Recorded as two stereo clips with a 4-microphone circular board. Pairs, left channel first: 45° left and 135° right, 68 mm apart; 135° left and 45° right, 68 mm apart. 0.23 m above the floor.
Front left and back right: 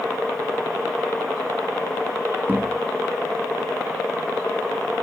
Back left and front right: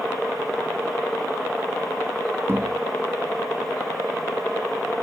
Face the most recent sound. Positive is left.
turn(degrees=-80)